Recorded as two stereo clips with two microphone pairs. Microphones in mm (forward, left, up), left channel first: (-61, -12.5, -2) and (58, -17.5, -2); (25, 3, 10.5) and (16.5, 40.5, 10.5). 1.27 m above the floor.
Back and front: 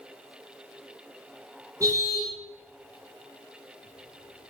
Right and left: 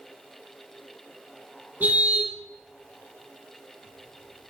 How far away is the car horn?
About 8 m.